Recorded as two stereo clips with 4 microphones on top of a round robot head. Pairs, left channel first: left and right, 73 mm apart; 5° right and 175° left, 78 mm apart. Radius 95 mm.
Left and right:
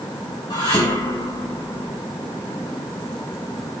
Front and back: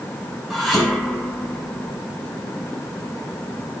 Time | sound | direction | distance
0.5 | dishes clattering | 90° left | 5 m